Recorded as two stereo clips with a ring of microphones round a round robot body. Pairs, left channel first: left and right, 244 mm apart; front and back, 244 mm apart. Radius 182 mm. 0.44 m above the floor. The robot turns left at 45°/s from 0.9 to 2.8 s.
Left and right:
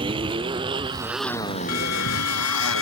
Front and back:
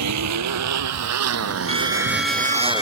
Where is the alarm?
115° left; by 2.8 s 65° left.